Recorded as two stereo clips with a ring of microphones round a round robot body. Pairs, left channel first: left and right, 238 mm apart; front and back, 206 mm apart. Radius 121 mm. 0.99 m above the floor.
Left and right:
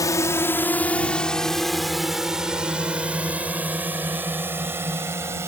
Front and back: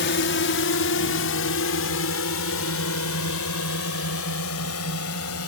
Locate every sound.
0.0 s a drone: 15° left; by 5.5 s 10° right